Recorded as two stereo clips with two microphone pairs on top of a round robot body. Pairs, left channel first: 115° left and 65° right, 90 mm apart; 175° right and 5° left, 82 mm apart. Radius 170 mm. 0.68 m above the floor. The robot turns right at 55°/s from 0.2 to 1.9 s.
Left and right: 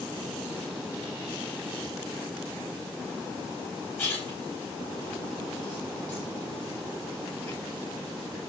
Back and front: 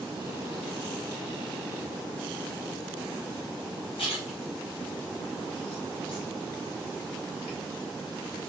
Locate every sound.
4.0 s a splash: 175° right, 1.4 m